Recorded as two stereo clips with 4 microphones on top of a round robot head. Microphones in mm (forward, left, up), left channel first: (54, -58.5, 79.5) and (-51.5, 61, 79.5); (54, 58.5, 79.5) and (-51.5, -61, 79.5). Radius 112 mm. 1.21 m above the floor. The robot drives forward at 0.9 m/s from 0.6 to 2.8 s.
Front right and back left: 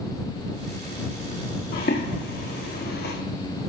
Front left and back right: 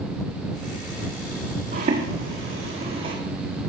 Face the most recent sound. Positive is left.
turn(degrees=-70)